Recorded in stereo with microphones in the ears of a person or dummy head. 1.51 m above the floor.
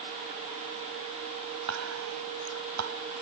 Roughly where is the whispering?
Right.